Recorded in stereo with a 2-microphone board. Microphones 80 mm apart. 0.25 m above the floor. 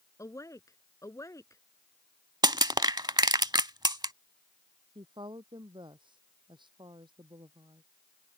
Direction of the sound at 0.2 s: 40° left (ahead or behind).